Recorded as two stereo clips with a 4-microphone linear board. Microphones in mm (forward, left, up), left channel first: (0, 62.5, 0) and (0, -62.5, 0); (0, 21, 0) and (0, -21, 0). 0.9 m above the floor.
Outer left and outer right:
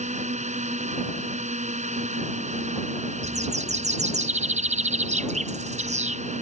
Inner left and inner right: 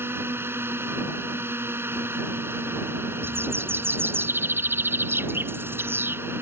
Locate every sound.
0.0 s a drone: 70° right (ahead or behind)
3.2 s a bird: 65° right (ahead or behind)